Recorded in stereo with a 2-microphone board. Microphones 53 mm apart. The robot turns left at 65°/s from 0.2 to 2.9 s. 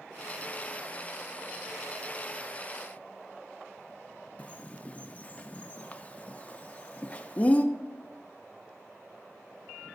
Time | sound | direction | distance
4.4 | a bird | 30° left (ahead or behind) | 0.6 m